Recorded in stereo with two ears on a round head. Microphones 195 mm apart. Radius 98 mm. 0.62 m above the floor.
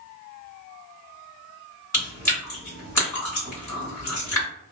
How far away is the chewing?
About 1.8 m.